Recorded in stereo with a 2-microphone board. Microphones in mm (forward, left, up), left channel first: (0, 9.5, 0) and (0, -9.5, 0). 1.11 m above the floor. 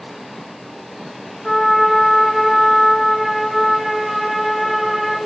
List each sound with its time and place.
1.4 s a trumpet: centre (ahead or behind), 0.7 m